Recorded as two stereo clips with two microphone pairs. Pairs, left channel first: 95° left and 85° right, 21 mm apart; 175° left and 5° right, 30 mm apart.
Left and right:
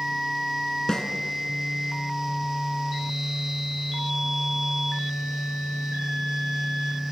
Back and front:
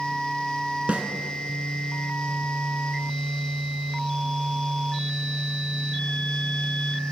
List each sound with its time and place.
0.9 s a snare drum: 30° left, 2.5 m